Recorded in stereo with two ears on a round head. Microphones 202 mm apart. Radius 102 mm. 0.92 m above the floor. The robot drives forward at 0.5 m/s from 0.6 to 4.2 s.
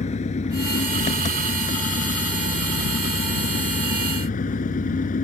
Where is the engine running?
30° left (ahead or behind); by 5.2 s 35° left (ahead or behind).